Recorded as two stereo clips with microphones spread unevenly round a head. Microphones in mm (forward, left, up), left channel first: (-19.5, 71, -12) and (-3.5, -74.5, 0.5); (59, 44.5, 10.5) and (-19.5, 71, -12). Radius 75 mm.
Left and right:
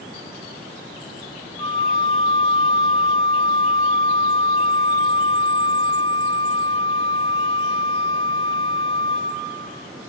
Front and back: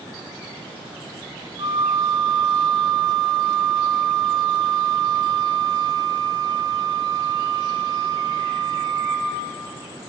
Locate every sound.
1.6 s a flute: 155° left, 1.6 m